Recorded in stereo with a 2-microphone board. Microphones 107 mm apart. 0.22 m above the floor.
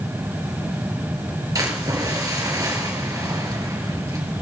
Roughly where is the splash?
Right.